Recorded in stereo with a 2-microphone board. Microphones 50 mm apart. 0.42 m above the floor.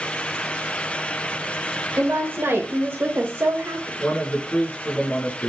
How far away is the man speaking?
About 5 m.